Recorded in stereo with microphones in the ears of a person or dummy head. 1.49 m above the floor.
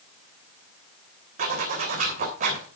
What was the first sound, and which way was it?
A zipper, 50° right (ahead or behind).